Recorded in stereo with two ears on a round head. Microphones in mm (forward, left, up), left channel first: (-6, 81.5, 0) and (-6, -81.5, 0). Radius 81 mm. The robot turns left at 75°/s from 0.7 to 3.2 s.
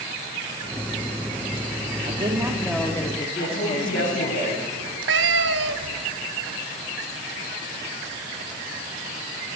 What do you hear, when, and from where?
2.0 s a woman speaking: 130° right, 1.4 m; by 4.4 s 145° left, 1.4 m
3.4 s a woman speaking: 75° left (ahead or behind), 10 m
4.8 s a cat meowing: 65° right (ahead or behind), 0.7 m